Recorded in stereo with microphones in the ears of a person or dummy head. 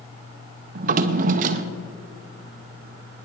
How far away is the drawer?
About 0.8 m.